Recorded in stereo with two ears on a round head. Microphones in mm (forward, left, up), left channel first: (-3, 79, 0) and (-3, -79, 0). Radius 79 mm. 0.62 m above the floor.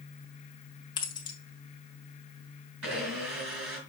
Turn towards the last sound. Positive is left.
turn(degrees=-85)